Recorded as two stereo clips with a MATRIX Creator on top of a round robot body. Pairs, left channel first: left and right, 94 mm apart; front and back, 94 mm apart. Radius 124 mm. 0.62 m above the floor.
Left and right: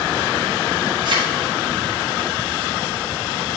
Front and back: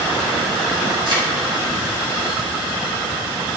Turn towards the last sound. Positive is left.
turn(degrees=-130)